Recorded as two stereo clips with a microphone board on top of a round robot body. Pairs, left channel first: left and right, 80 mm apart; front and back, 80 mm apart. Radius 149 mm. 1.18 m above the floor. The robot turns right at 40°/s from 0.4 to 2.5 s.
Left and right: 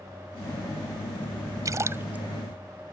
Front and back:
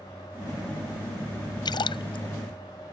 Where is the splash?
40° right; by 2.2 s 15° right.